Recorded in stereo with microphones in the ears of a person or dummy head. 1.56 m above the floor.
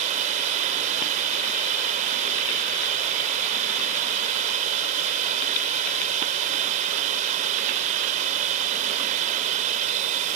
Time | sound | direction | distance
0.0 | running water | 40° right (ahead or behind) | ?